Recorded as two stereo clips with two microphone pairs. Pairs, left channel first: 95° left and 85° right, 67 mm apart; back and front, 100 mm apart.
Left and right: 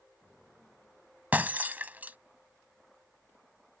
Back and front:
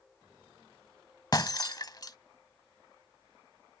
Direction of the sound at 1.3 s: 140° right.